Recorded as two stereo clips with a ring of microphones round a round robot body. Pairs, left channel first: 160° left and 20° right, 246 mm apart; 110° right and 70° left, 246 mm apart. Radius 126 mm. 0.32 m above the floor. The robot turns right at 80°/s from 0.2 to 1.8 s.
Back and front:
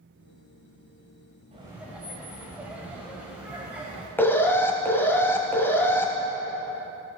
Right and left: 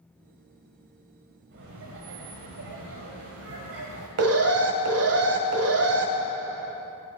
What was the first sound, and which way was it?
Laughter, 40° left.